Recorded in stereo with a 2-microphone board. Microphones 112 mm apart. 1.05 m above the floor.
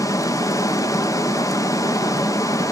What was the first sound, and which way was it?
Running water, 30° left (ahead or behind).